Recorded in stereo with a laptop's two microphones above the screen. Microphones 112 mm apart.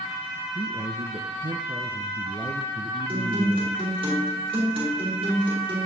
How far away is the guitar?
About 3.5 m.